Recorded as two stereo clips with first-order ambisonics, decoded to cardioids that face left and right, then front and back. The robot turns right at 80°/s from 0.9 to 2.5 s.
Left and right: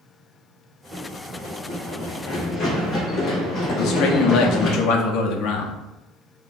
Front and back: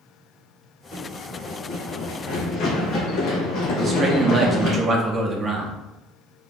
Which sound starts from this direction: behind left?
A man speaking, at 3.8 s.